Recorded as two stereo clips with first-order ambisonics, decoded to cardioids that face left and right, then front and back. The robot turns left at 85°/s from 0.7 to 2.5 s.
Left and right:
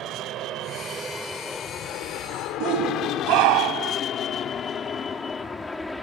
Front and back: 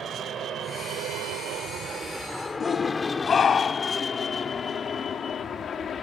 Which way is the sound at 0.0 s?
125° right.